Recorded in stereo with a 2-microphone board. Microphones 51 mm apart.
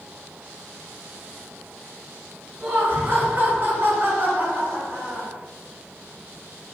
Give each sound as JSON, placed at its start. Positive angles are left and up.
{"t": 2.6, "sound": "laughter", "side_deg": -35, "distance_m": 1.9}